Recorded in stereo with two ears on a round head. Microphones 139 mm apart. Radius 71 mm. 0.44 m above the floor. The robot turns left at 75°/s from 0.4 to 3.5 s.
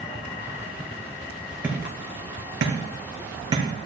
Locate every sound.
1.6 s hammering: 10° right (ahead or behind), 3 m; by 3.6 s 30° right (ahead or behind), 3 m